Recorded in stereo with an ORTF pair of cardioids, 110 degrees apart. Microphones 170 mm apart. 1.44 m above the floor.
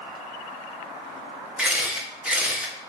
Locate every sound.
1.6 s a camera shutter: 5° right, 0.7 m